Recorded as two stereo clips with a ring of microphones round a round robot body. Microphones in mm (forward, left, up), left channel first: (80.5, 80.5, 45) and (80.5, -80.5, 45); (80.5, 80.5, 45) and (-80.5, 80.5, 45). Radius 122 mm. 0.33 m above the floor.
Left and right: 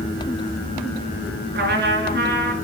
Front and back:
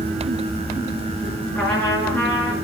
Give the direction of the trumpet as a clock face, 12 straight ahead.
3 o'clock.